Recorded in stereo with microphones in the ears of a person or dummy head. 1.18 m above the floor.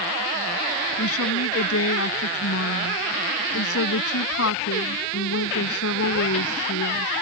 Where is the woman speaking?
75° left (ahead or behind).